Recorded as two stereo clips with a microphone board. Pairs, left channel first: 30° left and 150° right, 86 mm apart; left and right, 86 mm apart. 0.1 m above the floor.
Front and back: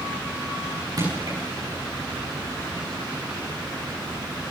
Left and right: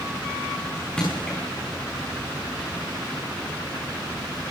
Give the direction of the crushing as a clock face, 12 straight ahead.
6 o'clock.